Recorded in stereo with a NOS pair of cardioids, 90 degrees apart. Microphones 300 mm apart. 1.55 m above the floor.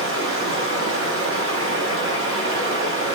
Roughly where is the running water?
Ahead right.